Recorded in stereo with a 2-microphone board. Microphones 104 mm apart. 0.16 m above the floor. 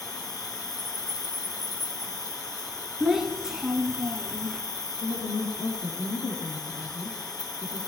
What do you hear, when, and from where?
0.0 s an insect: 35° left (ahead or behind), 1.6 m
3.0 s a child speaking: 5° right (ahead or behind), 1.3 m
5.0 s a woman speaking: 70° left (ahead or behind), 3.5 m